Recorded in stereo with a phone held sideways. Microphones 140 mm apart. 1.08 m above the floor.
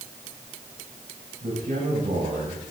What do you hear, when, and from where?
1.4 s a man speaking: 75° right (ahead or behind), 6.5 m